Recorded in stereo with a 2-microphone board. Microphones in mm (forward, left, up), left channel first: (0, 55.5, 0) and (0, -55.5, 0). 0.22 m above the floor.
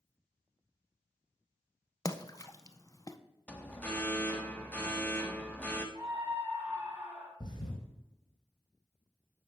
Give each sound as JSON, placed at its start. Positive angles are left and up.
{"t": 2.0, "sound": "a splash", "side_deg": 30, "distance_m": 0.5}
{"t": 3.5, "sound": "an alarm", "side_deg": 10, "distance_m": 1.0}
{"t": 6.0, "sound": "a scream", "side_deg": -15, "distance_m": 2.5}
{"t": 7.4, "sound": "a thud", "side_deg": 40, "distance_m": 4.0}